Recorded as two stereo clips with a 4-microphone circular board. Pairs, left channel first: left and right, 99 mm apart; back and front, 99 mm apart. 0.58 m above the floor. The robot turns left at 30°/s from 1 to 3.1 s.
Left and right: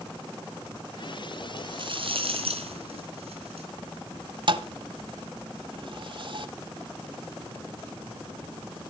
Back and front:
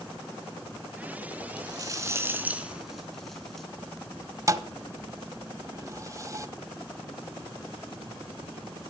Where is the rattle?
45° right, 3.5 m; by 3.7 s 95° right, 3.5 m.